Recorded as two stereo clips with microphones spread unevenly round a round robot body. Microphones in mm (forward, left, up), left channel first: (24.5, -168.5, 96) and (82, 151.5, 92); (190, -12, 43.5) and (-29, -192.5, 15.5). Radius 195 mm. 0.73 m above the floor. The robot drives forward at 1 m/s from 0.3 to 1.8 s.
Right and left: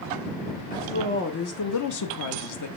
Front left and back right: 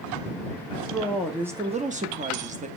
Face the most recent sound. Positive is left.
turn(degrees=-80)